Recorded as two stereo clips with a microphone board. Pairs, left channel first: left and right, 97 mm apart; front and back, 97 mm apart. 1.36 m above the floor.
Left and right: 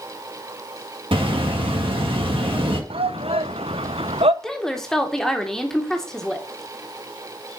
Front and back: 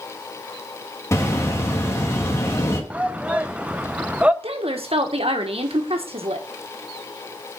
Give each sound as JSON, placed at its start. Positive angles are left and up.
{"t": 1.1, "sound": "a bird", "azimuth_deg": -60, "distance_m": 1.6}
{"t": 2.9, "sound": "a shout", "azimuth_deg": -105, "distance_m": 0.6}
{"t": 4.4, "sound": "a woman speaking", "azimuth_deg": 175, "distance_m": 1.4}